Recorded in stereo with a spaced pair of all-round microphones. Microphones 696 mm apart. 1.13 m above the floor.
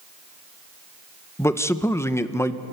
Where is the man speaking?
5° left (ahead or behind), 0.7 m.